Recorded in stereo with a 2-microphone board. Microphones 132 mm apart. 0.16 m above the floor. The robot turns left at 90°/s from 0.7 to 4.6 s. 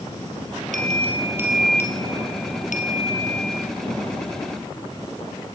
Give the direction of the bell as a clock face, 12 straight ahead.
3 o'clock.